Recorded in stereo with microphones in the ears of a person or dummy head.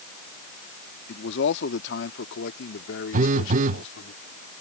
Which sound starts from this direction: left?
A man speaking, at 1.1 s.